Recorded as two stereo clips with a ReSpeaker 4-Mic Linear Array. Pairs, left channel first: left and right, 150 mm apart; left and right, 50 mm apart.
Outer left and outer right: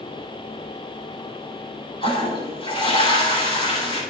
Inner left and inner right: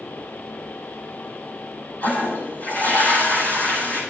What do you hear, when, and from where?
2.0 s a toilet flushing: 40° left (ahead or behind), 7.5 m